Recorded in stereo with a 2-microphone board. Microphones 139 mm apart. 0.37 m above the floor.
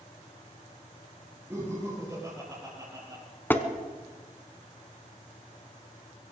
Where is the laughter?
15° right (ahead or behind), 6 m; by 3.2 s 30° right (ahead or behind), 6 m.